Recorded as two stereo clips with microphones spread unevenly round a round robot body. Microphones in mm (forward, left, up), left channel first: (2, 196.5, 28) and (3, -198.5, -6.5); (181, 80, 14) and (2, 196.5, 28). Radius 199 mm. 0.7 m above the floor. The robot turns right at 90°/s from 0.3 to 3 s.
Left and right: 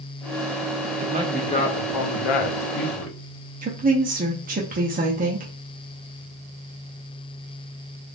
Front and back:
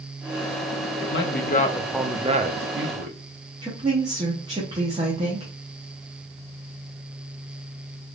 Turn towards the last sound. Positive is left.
turn(degrees=-145)